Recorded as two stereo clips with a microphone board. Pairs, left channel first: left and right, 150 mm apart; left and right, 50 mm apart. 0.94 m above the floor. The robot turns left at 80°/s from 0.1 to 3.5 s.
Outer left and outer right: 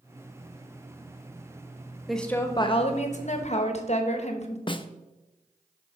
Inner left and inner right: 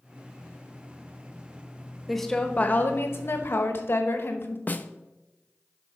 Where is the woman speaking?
Straight behind, 1.1 m; by 4.6 s 70° left, 1.1 m.